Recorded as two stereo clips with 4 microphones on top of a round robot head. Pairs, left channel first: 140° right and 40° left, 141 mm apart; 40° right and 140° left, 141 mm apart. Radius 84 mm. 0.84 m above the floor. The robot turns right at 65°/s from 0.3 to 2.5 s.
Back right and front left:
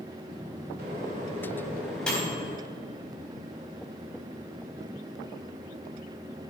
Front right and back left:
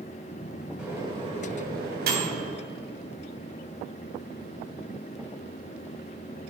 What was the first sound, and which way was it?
A microwave, 55° left.